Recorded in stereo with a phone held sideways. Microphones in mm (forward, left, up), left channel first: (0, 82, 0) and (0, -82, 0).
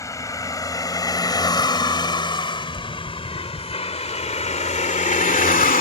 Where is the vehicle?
20° left (ahead or behind); by 5.8 s 60° left (ahead or behind).